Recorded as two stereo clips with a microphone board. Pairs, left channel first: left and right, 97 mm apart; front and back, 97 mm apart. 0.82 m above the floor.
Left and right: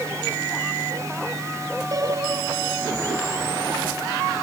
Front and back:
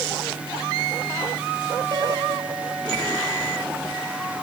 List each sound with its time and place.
1.9 s a piano: 140° right